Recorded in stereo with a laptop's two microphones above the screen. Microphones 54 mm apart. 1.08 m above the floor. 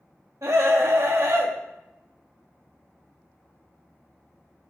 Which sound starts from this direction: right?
A scream, at 0.4 s.